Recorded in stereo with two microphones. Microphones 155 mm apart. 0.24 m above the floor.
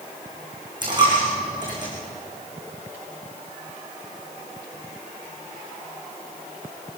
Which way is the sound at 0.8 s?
30° right (ahead or behind).